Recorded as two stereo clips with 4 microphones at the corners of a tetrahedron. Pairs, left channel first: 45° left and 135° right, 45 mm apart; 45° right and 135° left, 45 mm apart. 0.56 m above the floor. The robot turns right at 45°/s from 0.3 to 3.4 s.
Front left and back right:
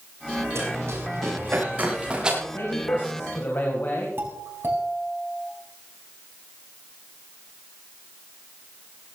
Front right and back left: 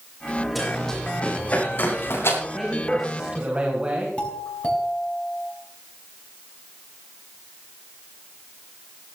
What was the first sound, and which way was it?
Running footsteps, 130° right.